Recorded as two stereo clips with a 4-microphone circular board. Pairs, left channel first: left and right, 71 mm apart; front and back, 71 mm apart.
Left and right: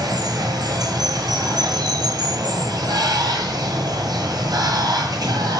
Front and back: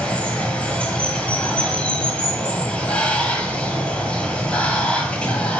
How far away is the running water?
About 0.9 m.